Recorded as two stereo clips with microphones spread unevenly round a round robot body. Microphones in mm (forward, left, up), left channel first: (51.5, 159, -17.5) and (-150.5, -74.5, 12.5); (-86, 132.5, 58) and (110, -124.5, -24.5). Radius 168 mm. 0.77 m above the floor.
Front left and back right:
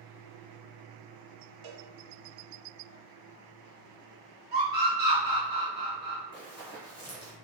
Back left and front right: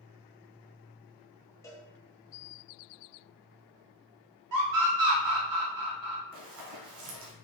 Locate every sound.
1.6 s a cowbell: 145° right, 0.6 m
4.5 s a scream: 65° right, 1.3 m
6.3 s running footsteps: 15° right, 1.6 m